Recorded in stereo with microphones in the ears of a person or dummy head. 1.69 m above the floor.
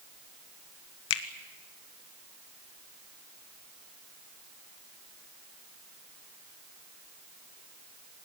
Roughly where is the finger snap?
Left.